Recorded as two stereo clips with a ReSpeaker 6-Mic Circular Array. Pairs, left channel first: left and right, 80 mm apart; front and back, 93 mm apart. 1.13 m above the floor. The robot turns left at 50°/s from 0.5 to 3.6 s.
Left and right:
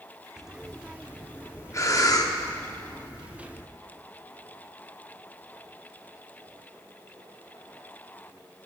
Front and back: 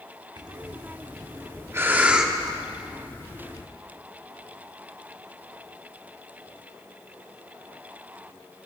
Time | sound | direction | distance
0.4 | breathing | 170° right | 0.8 m